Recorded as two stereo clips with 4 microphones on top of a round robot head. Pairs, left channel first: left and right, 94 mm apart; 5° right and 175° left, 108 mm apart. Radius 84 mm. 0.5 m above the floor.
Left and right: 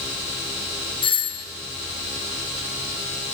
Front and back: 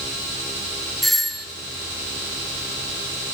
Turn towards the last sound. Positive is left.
turn(degrees=85)